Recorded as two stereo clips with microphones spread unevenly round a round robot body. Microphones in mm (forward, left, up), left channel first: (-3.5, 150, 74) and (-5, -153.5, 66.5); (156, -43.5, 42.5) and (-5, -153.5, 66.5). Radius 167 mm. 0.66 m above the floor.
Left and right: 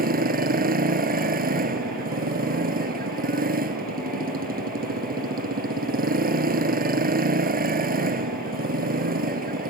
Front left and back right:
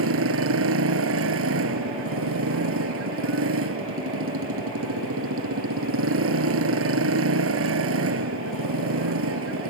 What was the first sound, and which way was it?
A motorcycle, 155° right.